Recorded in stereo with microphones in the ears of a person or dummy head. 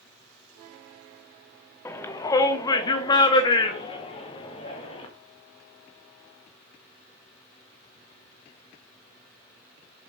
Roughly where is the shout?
Centre.